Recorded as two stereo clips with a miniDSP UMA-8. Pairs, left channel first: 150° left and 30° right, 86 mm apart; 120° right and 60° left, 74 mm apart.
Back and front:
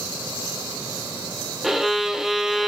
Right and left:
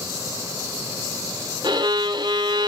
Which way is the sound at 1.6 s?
55° left.